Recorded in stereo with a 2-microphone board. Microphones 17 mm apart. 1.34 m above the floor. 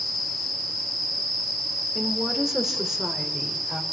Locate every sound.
1.9 s a woman speaking: 20° right (ahead or behind), 3.5 m; by 3.8 s 45° right (ahead or behind), 5 m